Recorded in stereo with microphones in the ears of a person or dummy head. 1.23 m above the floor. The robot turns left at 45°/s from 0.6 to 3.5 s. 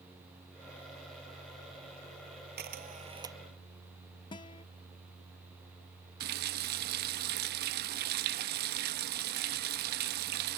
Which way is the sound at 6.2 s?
50° right (ahead or behind).